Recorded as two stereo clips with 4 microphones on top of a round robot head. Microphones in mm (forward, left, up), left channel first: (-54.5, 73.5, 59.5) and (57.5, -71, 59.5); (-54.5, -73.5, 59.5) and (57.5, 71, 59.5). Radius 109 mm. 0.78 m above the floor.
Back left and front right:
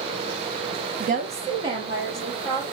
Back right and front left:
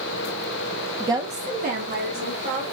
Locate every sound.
1.0 s a woman speaking: 25° right, 0.6 m; by 2.6 s 25° left, 2.5 m